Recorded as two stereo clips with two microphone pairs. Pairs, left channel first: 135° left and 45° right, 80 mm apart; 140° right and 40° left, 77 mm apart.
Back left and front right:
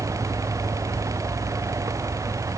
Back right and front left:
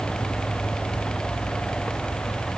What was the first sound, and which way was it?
Only background noise.